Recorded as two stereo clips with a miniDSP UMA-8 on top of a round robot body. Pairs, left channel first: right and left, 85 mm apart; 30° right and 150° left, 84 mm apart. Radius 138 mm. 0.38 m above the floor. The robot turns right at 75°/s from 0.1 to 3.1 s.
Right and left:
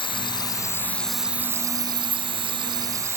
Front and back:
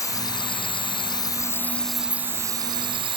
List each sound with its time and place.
0.0 s an insect: 80° right; by 3.2 s 145° left